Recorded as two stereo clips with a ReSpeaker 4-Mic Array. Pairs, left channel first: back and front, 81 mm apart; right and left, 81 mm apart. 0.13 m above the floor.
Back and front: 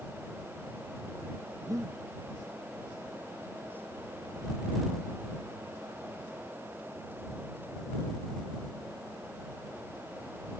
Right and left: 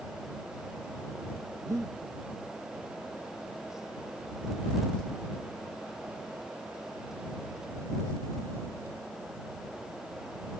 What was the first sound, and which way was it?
Breathing, 45° left.